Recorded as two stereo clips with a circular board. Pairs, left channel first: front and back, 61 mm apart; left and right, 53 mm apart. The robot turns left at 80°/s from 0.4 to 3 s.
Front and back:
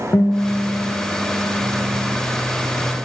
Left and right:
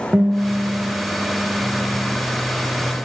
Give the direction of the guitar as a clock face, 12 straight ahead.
1 o'clock.